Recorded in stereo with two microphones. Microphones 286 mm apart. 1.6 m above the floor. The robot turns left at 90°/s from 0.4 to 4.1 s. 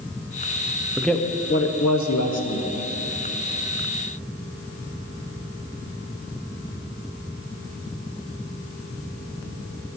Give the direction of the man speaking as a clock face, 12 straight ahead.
6 o'clock.